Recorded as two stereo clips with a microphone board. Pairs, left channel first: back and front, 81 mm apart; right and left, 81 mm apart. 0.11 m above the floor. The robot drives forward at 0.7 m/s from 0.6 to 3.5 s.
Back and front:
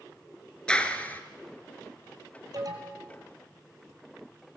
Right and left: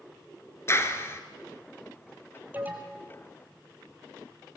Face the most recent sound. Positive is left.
turn(degrees=35)